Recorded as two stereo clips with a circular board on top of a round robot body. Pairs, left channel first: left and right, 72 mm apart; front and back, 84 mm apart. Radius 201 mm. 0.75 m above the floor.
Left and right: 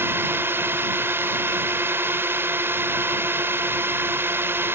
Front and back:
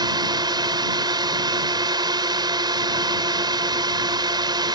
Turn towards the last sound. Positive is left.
turn(degrees=-150)